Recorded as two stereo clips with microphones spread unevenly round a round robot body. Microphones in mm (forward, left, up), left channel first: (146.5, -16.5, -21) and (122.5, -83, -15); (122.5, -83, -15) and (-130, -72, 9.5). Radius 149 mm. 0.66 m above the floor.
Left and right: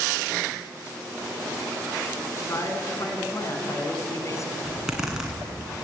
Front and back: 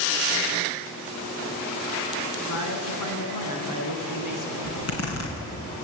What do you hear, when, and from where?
2.4 s a man speaking: 25° left, 5.5 m
4.6 s a zipper: 30° right, 7.5 m